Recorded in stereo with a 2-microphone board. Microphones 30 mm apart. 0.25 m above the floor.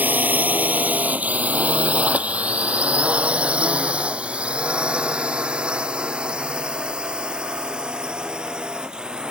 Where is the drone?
65° right (ahead or behind); by 9.3 s 25° right (ahead or behind).